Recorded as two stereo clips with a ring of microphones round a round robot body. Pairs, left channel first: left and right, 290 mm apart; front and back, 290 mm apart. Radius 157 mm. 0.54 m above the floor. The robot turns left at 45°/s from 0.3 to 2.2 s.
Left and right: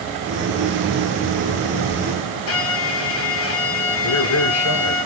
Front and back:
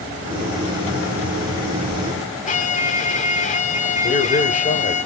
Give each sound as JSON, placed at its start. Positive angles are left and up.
{"t": 2.5, "sound": "a violin", "azimuth_deg": 60, "distance_m": 1.7}
{"t": 4.0, "sound": "a man speaking", "azimuth_deg": 60, "distance_m": 2.0}